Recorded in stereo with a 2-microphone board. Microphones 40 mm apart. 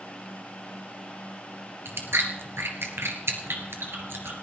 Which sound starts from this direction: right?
Chewing, at 1.9 s.